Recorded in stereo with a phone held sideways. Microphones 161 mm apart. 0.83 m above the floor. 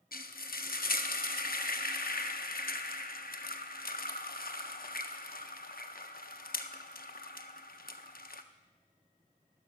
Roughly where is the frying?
Left.